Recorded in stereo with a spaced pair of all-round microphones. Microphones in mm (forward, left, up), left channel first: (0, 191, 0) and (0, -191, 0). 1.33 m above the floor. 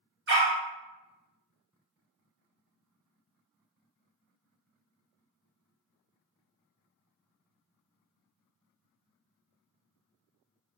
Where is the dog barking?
35° right (ahead or behind), 1.0 m.